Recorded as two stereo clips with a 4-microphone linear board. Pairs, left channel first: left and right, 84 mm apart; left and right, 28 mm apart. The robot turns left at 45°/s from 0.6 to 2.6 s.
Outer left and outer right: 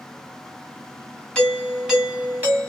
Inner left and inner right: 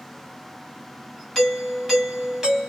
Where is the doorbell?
15° left, 1.6 m; by 2.7 s 45° right, 1.6 m.